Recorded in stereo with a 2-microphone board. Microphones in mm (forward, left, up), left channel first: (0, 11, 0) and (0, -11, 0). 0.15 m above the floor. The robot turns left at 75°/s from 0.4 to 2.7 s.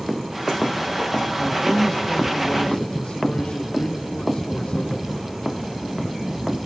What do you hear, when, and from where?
1.4 s a man speaking: 170° right, 3.5 m; by 5.1 s 90° left, 3.5 m